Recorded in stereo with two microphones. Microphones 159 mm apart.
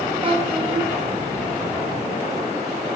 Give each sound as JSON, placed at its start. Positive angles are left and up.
{"t": 0.2, "sound": "a child speaking", "side_deg": -35, "distance_m": 1.2}